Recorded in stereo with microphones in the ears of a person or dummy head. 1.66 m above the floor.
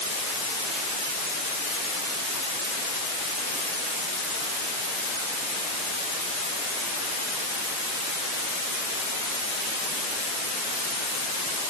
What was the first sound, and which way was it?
Only background noise.